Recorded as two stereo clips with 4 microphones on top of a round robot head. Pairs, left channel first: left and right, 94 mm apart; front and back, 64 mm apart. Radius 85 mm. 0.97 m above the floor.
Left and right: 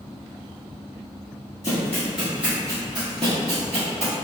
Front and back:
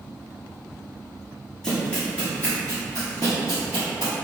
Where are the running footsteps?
70° left, 0.9 m; by 4.1 s 70° right, 1.5 m.